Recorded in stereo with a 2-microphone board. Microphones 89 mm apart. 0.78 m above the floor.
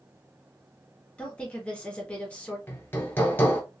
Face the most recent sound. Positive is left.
turn(degrees=25)  # may be behind; listen again after turning